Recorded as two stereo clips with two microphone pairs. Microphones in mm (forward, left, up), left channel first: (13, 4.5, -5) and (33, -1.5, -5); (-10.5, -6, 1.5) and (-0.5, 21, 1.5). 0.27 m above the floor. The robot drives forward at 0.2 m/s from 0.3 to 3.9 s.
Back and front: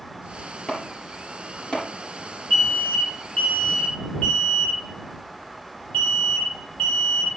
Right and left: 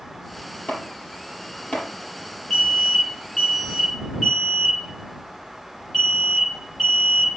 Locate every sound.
0.7 s chopping: 155° right, 4 m; by 1.9 s 160° right, 4 m
2.5 s an alarm: 170° left, 7.5 m